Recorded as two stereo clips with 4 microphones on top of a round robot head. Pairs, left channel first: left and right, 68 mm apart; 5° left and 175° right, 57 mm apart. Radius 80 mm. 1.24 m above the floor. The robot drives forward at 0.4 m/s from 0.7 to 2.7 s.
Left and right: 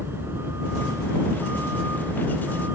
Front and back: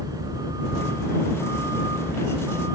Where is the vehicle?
155° right.